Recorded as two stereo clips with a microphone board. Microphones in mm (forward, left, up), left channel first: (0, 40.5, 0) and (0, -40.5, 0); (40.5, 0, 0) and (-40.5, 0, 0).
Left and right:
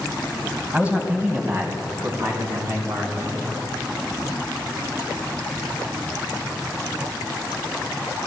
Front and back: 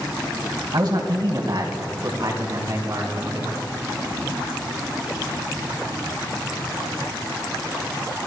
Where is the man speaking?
165° right, 2.5 m; by 3.5 s 135° right, 4.5 m.